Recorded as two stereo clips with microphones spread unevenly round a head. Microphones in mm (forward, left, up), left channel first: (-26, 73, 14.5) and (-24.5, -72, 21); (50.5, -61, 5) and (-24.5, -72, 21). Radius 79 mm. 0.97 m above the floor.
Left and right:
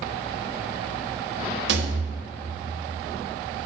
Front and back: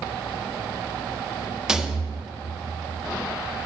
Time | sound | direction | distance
1.7 | a rattle | 90° right | 1.1 m